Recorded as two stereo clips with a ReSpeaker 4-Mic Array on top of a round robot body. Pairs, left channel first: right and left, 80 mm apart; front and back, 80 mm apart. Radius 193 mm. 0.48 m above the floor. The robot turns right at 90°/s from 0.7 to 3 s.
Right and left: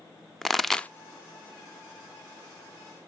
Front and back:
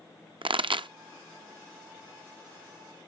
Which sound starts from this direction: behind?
A pop, at 0.4 s.